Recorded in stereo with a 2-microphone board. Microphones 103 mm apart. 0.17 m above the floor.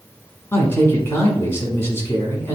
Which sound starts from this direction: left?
A man speaking, at 0.5 s.